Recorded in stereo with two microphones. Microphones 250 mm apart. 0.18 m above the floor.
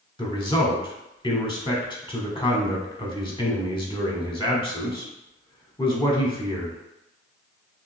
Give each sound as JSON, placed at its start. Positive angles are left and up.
{"t": 0.2, "sound": "a man speaking", "side_deg": 20, "distance_m": 1.0}